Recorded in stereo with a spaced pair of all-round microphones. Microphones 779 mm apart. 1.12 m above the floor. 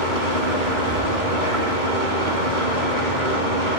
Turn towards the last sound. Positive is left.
turn(degrees=-80)